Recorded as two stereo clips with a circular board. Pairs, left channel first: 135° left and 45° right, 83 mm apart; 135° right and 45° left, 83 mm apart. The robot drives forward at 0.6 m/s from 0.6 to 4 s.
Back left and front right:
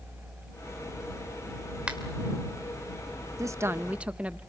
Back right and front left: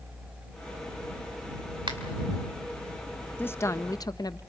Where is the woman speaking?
75° right, 0.7 m; by 4.4 s 115° right, 0.7 m.